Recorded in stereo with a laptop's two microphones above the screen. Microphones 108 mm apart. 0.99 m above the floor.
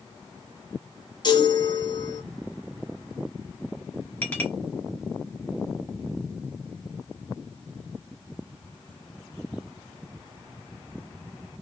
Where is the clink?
15° left (ahead or behind), 1.0 m.